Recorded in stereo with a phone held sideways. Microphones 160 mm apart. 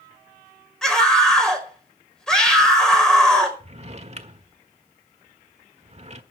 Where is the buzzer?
No buzzer in this recording.